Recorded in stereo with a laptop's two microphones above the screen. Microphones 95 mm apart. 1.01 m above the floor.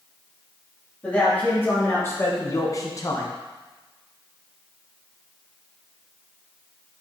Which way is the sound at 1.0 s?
15° left (ahead or behind).